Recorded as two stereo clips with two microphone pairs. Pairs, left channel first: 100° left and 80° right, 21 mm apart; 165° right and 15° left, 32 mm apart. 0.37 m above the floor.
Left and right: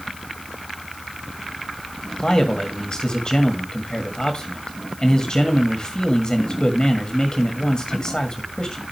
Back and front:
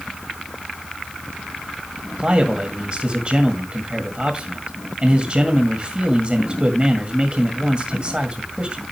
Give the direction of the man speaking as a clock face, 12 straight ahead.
10 o'clock.